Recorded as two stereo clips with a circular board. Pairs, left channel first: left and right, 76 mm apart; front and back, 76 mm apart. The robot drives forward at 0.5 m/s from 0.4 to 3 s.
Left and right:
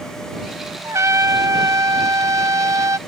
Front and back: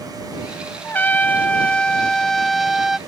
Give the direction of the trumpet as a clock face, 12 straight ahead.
2 o'clock.